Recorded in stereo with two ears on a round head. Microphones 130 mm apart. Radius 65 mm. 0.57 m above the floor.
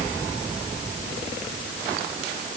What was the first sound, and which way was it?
Only background noise.